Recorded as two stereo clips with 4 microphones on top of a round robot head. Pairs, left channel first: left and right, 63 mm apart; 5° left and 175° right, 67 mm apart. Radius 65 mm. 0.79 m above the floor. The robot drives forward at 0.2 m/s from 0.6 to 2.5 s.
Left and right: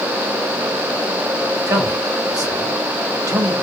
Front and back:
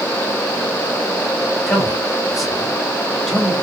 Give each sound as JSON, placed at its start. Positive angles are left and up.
{"t": 1.7, "sound": "a man speaking", "azimuth_deg": -85, "distance_m": 1.3}